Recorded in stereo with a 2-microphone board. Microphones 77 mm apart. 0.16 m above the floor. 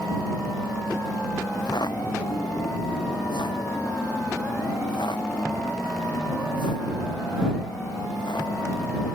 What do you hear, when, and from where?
1.5 s footsteps: 65° left (ahead or behind); by 9.2 s 85° left